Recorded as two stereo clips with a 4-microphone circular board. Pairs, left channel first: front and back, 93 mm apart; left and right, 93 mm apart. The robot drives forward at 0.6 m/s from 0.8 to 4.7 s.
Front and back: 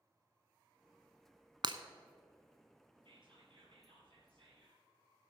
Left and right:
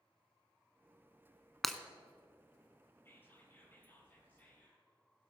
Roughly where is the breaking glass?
Behind.